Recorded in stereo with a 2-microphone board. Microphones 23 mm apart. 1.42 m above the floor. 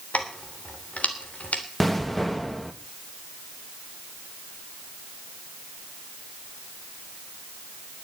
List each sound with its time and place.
0.1 s keys jangling: 80° left, 3 m
1.8 s an explosion: 10° left (ahead or behind), 1.5 m